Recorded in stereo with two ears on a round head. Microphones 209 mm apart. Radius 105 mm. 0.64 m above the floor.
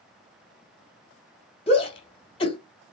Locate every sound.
1.7 s a shout: 30° left (ahead or behind), 2 m